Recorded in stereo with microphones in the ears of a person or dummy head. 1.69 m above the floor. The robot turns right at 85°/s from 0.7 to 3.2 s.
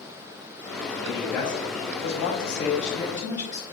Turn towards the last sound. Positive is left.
turn(degrees=175)